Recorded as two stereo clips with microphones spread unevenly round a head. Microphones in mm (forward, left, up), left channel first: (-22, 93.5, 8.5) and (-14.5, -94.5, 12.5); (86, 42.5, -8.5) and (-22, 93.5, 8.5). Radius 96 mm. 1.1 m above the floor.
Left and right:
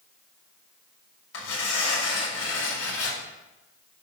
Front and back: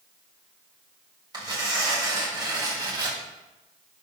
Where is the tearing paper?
100° left, 4.5 m.